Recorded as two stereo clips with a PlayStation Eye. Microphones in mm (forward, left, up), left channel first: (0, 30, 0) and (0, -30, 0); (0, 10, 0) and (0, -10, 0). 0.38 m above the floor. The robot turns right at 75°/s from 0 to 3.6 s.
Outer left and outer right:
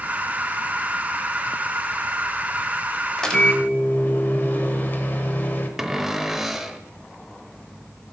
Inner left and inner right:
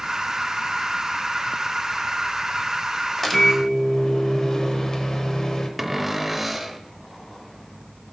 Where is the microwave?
5° left, 1.0 m; by 5.7 s 40° left, 1.0 m.